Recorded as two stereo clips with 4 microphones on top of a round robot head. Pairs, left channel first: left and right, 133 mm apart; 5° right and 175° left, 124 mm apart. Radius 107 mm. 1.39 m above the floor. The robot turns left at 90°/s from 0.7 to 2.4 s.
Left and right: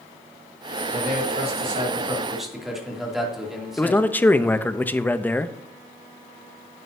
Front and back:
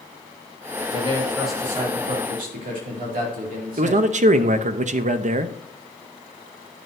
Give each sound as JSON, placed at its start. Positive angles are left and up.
{"t": 0.9, "sound": "a man speaking", "azimuth_deg": -45, "distance_m": 2.5}
{"t": 3.8, "sound": "a man speaking", "azimuth_deg": 165, "distance_m": 0.7}